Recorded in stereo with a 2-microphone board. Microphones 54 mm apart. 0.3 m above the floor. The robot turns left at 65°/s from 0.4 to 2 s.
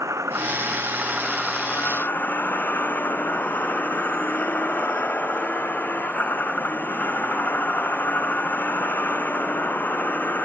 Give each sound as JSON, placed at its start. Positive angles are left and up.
{"t": 0.0, "sound": "a vehicle", "azimuth_deg": -115}